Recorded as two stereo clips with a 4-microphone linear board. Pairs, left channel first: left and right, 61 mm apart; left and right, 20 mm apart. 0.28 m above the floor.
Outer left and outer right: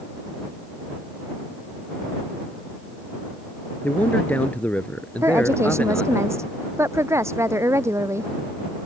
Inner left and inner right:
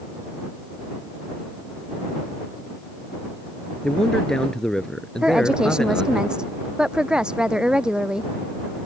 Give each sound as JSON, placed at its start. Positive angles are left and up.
{"t": 3.8, "sound": "a man speaking", "side_deg": 25}
{"t": 5.2, "sound": "a woman speaking", "side_deg": -50}